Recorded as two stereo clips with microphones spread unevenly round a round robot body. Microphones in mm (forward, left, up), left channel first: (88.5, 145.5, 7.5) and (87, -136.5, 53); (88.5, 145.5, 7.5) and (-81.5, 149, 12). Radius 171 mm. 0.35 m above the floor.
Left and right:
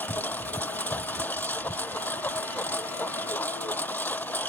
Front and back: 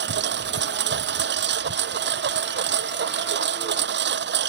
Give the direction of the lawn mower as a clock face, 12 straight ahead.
6 o'clock.